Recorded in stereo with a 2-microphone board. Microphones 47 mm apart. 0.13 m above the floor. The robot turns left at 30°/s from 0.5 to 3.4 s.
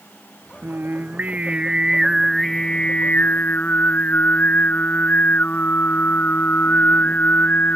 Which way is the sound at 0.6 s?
130° right.